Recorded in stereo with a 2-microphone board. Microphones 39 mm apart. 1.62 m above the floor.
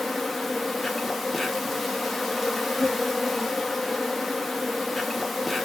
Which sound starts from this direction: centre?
An insect, at 0.0 s.